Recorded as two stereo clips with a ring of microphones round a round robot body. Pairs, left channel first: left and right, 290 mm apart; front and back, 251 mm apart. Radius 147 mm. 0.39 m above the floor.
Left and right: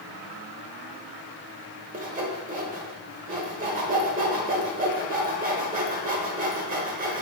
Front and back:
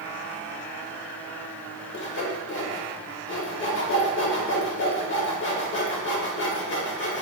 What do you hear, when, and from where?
1.9 s sawing: 35° right, 0.9 m